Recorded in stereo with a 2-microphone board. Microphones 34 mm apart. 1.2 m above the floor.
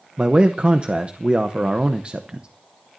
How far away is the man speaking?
About 0.8 m.